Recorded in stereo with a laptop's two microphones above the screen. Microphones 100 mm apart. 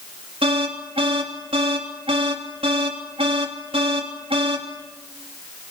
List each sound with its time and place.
0.4 s an alarm: 70° right (ahead or behind), 3 m